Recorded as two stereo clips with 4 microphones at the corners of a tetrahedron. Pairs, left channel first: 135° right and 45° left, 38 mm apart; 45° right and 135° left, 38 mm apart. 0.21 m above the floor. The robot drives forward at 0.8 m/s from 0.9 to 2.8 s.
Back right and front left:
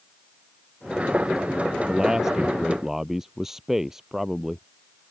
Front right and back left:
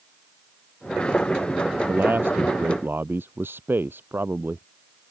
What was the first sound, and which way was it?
A man speaking, 120° left.